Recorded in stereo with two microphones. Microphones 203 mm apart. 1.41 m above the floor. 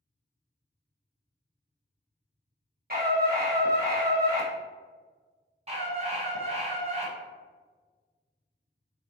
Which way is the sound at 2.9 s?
50° right (ahead or behind).